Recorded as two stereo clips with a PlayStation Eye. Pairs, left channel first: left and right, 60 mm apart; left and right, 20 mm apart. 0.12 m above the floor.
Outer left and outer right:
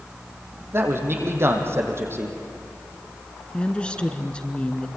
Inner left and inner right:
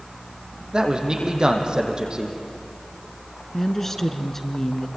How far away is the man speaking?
About 3.5 m.